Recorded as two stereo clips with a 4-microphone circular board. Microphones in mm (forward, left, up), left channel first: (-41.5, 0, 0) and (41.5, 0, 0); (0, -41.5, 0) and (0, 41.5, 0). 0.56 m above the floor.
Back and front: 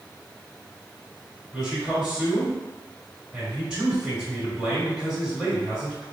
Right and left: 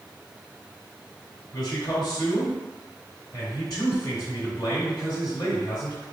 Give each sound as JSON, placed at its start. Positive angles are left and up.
{"t": 1.5, "sound": "a man speaking", "azimuth_deg": -75, "distance_m": 1.7}